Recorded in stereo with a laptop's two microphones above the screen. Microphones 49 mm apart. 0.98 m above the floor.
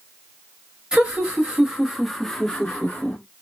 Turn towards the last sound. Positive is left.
turn(degrees=25)  # may be behind; listen again after turning